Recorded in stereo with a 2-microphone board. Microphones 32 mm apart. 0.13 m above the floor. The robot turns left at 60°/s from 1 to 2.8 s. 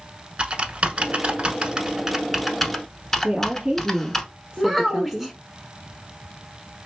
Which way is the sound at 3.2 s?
20° right (ahead or behind).